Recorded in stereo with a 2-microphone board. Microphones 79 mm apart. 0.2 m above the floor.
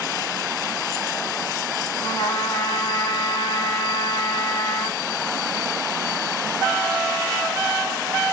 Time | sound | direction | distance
2.0 | a trumpet | 85° left | 2.5 m